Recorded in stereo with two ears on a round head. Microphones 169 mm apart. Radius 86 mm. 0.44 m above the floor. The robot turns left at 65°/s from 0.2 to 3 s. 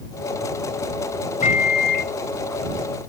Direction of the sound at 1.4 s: 135° left.